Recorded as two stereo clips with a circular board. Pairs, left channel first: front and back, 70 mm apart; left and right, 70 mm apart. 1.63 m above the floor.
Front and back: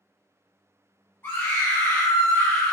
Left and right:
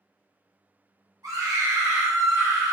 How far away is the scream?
About 1.6 m.